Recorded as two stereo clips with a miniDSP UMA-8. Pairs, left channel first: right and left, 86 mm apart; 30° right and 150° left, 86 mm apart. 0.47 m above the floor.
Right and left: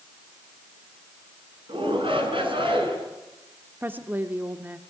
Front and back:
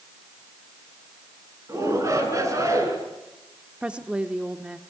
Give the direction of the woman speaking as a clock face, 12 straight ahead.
9 o'clock.